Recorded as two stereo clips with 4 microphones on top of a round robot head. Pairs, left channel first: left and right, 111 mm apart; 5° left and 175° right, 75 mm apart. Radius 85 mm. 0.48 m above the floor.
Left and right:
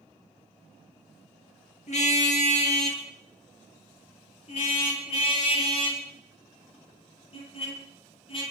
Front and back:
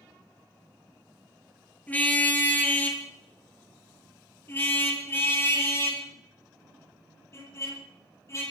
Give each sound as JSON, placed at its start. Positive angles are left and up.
{"t": 1.9, "sound": "a car horn", "azimuth_deg": 70, "distance_m": 5.0}